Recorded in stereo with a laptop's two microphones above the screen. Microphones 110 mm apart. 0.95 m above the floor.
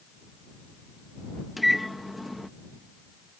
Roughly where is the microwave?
Centre.